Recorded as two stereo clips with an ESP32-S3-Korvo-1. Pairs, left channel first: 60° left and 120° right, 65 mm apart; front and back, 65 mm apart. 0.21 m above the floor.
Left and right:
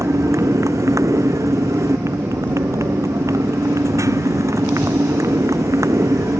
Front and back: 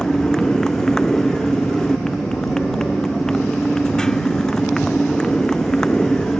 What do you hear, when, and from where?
0.0 s a motorcycle: 80° right